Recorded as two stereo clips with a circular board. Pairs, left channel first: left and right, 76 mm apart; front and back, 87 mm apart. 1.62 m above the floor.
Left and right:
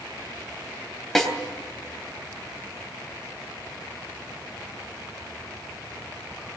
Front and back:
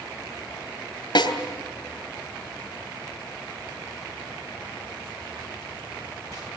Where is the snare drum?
5° left, 3 m.